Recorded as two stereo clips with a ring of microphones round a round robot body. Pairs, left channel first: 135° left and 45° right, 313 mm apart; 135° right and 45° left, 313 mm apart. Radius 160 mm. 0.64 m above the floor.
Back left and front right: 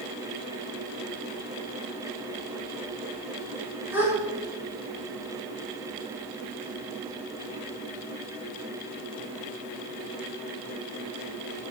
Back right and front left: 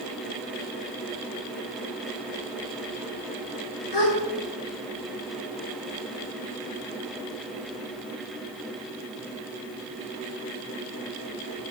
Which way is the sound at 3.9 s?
130° right.